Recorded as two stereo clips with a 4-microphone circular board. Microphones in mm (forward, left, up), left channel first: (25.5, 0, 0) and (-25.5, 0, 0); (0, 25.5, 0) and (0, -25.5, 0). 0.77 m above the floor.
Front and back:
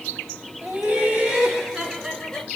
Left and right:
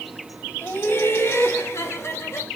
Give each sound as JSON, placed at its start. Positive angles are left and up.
{"t": 0.6, "sound": "laughter", "azimuth_deg": 125, "distance_m": 2.5}